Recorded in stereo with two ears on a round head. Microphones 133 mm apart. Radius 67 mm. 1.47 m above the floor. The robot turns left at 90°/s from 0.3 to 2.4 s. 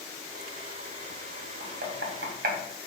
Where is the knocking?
45° right (ahead or behind), 0.6 m; by 2.6 s 65° right (ahead or behind), 0.6 m.